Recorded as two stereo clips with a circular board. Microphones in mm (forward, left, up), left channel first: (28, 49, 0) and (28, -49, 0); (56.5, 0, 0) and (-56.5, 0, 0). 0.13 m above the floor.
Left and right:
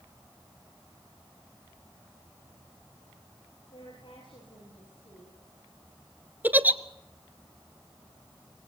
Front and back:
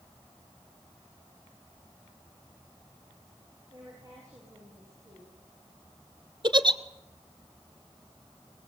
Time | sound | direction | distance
3.7 | a woman speaking | 120° left | 7.5 m
6.4 | a giggle | 155° right | 1.1 m